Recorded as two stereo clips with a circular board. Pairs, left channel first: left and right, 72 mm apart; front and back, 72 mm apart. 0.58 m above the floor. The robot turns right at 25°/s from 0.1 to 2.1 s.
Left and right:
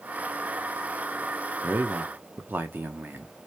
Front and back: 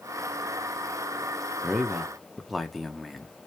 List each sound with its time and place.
1.6 s a man speaking: 105° right, 0.6 m; by 3.3 s 90° right, 0.6 m